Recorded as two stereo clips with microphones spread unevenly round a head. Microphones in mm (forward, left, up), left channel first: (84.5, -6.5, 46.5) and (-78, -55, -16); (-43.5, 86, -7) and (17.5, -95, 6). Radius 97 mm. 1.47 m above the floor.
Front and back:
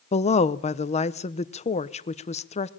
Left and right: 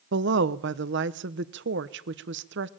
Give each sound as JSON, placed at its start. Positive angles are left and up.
{"t": 0.1, "sound": "a woman speaking", "azimuth_deg": -35, "distance_m": 1.0}